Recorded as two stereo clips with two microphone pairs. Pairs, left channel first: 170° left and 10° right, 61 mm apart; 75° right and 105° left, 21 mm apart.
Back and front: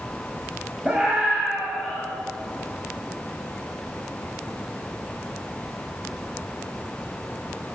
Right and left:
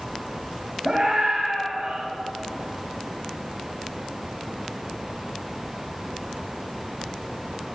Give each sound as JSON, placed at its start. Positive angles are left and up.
{"t": 0.8, "sound": "a scream", "azimuth_deg": 50, "distance_m": 1.9}